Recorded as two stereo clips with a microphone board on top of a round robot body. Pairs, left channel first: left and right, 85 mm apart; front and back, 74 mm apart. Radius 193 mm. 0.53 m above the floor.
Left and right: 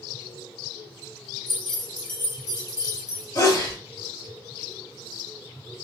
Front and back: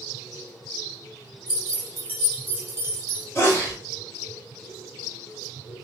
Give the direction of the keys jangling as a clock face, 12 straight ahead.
8 o'clock.